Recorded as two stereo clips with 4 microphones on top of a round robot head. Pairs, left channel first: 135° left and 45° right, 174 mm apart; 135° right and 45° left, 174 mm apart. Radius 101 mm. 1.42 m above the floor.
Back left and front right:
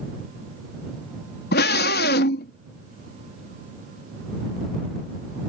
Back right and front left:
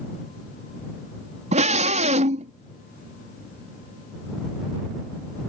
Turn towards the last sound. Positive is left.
turn(degrees=100)